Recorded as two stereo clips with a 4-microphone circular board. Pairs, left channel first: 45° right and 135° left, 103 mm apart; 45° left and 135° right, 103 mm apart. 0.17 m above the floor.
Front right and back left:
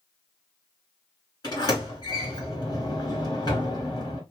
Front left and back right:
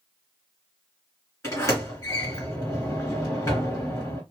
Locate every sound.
1.4 s a sliding door: 10° right, 2.5 m